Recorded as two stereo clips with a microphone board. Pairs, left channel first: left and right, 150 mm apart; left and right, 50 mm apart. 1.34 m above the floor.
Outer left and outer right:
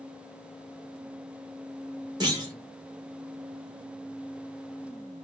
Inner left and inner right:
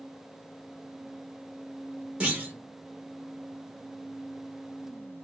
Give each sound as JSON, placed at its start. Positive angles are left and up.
{"t": 2.2, "sound": "a clunk", "side_deg": -25, "distance_m": 1.2}